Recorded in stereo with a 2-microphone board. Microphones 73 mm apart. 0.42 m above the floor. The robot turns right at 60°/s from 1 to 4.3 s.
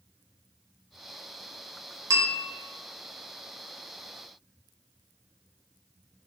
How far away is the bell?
About 0.8 m.